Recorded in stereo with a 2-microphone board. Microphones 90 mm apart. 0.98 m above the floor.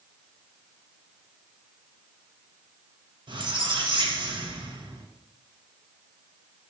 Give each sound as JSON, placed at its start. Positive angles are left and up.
{"t": 3.3, "sound": "a squeak", "side_deg": -60, "distance_m": 0.8}